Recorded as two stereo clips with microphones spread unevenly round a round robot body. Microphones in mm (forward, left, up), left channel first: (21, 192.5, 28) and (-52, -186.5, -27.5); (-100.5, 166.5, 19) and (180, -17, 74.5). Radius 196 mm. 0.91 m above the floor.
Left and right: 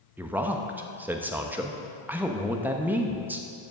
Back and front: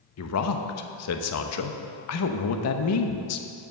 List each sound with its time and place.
0.2 s a man speaking: straight behind, 0.8 m